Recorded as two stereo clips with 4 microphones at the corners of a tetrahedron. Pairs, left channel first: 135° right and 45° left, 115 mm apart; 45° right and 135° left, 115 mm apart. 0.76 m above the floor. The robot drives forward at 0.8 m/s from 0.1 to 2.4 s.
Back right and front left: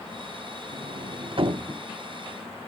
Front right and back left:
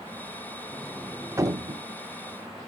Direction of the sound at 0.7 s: 35° left.